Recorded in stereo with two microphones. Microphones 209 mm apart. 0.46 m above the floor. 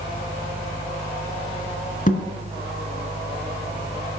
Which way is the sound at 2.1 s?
40° left (ahead or behind).